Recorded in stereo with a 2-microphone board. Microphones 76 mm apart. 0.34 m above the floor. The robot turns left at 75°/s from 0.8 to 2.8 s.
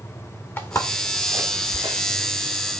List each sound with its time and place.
0.6 s footsteps: 30° left (ahead or behind), 3 m; by 2.0 s 65° right (ahead or behind), 2.5 m